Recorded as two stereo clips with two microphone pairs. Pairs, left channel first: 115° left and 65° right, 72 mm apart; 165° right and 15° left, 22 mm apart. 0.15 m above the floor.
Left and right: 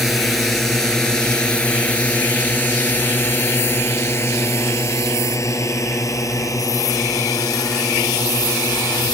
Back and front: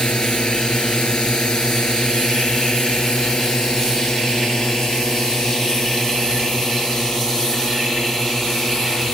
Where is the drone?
155° right; by 9.1 s 135° left.